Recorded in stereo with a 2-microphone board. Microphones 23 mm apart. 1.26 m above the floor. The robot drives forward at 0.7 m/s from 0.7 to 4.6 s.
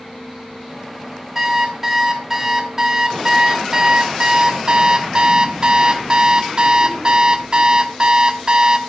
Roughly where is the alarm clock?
Centre.